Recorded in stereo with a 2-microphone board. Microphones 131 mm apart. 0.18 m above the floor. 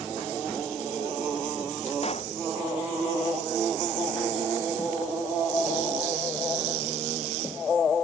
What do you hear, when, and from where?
2.0 s a pop: 50° left (ahead or behind)